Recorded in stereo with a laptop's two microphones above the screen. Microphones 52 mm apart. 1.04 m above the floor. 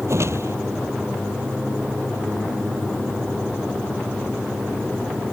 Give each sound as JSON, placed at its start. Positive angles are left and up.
{"t": 0.1, "sound": "a whoosh", "side_deg": -60}